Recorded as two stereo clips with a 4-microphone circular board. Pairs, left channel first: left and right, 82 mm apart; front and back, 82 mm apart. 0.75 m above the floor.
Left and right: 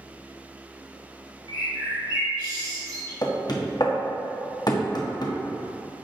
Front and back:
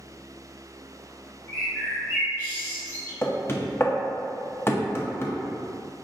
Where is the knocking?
60° left, 0.6 m.